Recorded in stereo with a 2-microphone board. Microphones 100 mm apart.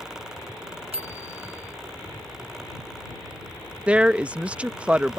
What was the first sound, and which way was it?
A bicycle bell, 85° right.